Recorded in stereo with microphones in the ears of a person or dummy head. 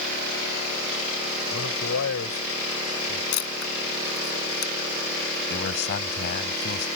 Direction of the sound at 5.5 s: 55° left (ahead or behind).